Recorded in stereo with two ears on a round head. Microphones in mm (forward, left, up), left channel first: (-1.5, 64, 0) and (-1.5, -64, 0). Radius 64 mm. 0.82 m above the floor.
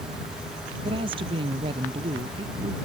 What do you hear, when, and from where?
0.8 s a woman speaking: 35° right (ahead or behind)